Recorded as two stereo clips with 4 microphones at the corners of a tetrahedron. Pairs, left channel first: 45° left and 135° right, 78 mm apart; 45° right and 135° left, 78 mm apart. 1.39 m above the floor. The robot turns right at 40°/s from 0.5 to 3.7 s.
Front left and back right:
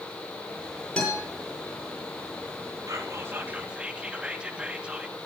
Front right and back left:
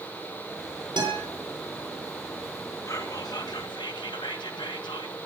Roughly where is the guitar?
Behind left.